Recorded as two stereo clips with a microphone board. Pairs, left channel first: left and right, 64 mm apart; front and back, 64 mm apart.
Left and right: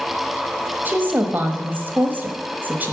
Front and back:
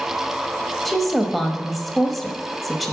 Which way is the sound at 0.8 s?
85° right.